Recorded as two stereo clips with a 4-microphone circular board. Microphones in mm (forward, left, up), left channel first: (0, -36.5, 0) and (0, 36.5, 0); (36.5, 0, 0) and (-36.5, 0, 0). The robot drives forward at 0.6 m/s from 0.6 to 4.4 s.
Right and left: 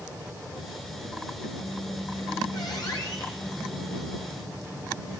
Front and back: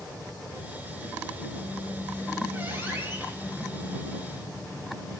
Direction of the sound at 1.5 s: 110° right.